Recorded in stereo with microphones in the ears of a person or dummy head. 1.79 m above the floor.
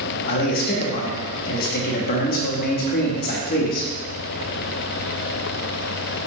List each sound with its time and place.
0.3 s a man speaking: 50° left (ahead or behind), 0.8 m